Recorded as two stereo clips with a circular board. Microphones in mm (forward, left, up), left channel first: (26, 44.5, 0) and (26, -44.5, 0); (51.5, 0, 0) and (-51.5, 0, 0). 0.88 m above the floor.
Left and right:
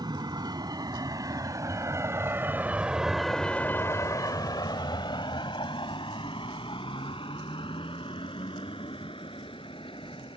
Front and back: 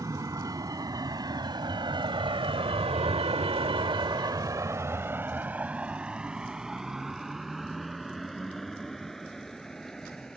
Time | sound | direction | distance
0.0 | a vehicle | 125° right | ?